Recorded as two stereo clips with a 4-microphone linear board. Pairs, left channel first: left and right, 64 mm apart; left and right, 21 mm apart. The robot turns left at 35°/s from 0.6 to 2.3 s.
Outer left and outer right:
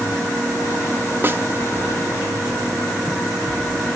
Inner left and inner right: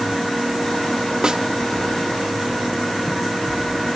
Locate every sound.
1.2 s a snare drum: 30° right (ahead or behind), 1.0 m; by 1.4 s 35° right (ahead or behind), 1.0 m